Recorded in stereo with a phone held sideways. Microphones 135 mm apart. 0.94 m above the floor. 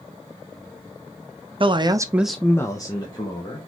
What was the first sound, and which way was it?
A man speaking, 40° right (ahead or behind).